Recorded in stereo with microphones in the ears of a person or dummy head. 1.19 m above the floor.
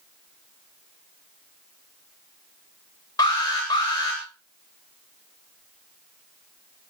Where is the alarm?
15° left (ahead or behind), 9 m.